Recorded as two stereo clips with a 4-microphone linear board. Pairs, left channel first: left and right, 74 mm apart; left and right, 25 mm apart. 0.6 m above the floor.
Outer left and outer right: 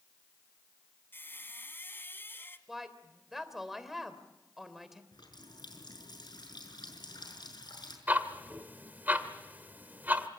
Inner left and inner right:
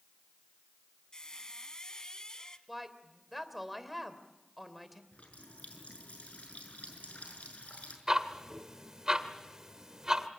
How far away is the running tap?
About 6.5 m.